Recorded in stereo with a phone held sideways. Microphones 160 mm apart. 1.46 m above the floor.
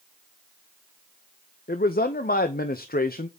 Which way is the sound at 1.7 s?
65° left (ahead or behind).